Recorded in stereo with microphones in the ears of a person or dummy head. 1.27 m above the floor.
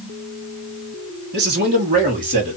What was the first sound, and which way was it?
A man speaking, 50° right (ahead or behind).